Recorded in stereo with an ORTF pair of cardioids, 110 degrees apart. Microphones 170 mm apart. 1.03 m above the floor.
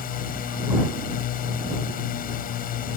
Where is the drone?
60° left.